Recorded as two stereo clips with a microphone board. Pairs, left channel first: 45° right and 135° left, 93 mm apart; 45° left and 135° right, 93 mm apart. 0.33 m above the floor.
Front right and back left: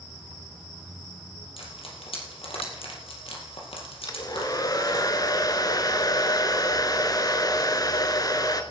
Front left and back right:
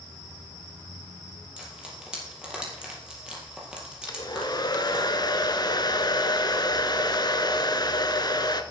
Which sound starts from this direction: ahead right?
Frying, at 1.6 s.